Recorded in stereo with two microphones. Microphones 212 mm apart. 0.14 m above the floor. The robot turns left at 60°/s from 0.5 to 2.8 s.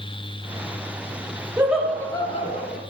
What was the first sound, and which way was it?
Laughter, 165° right.